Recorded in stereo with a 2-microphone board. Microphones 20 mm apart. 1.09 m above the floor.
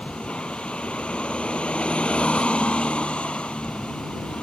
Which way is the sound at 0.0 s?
70° left (ahead or behind).